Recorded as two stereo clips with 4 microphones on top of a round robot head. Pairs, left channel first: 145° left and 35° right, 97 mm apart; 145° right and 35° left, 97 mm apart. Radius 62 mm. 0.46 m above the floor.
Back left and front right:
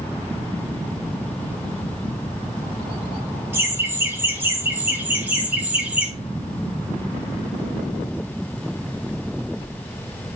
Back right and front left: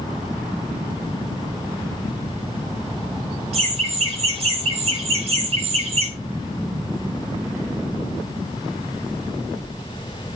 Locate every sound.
3.5 s laughter: 30° left, 4.5 m; by 6.1 s 40° left, 3 m